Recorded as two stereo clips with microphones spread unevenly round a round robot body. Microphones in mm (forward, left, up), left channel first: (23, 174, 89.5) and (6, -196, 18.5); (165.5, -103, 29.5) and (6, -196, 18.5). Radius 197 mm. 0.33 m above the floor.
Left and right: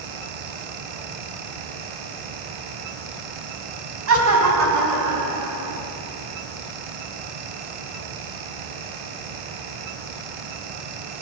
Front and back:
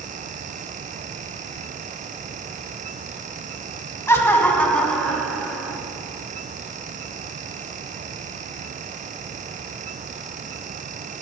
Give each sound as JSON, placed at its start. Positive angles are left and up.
{"t": 4.1, "sound": "laughter", "azimuth_deg": -45, "distance_m": 2.5}